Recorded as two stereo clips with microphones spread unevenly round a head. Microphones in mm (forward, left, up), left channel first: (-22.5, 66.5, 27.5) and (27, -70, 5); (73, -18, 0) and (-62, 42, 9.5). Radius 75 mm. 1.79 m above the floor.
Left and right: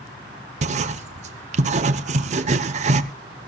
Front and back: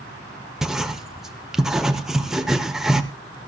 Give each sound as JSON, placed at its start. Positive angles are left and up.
{"t": 0.6, "sound": "writing", "azimuth_deg": -115, "distance_m": 0.7}